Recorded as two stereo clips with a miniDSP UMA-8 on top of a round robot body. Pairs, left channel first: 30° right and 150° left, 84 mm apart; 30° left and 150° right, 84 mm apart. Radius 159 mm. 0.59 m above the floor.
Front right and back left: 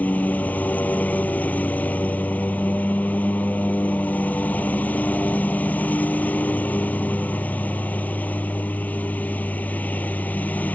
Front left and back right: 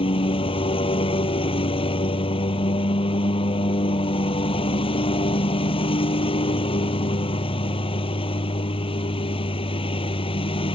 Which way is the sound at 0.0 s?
40° left.